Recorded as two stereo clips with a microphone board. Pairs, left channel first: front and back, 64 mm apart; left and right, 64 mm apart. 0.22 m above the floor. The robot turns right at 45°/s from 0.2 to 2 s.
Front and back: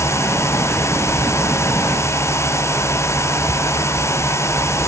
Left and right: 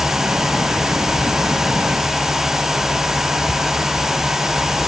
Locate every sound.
Only background noise.